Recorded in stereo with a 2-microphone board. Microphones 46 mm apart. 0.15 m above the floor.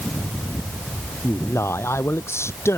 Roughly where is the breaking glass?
No breaking glass in this recording.